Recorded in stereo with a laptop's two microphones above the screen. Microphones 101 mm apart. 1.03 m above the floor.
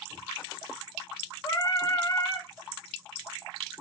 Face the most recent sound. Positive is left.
turn(degrees=35)  # may be behind; listen again after turning